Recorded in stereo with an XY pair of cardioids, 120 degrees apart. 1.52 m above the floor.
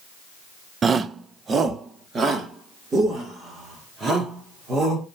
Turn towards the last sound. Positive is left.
turn(degrees=-35)